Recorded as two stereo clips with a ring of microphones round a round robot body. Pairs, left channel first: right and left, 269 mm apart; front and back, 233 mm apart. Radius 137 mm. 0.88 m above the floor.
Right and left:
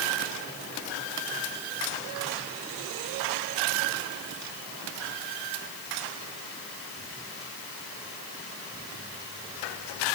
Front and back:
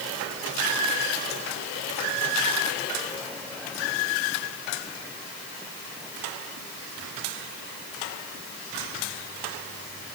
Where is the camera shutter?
I don't hear a camera shutter.